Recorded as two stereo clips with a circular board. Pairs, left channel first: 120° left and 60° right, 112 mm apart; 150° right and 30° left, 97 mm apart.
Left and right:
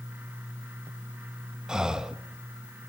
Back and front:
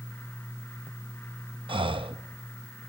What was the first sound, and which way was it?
Breathing, 25° left.